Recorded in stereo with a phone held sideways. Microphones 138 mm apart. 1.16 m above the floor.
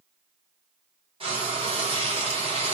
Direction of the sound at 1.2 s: 40° right (ahead or behind).